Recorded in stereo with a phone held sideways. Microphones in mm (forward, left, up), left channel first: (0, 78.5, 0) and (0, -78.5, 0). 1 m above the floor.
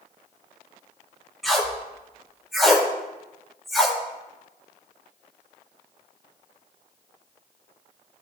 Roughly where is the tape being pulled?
Centre.